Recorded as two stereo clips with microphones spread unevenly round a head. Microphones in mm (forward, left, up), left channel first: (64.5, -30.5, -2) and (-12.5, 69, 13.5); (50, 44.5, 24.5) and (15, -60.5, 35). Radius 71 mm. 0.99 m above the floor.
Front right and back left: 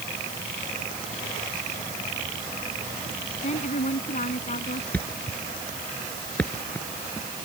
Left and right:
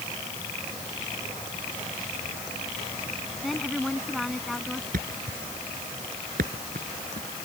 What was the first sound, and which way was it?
A woman speaking, 20° right.